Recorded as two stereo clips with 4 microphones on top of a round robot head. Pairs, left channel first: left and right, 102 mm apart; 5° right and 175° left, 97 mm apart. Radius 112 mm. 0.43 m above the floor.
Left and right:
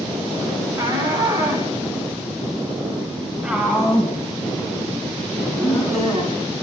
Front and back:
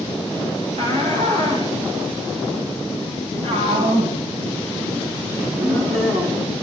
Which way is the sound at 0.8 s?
155° right.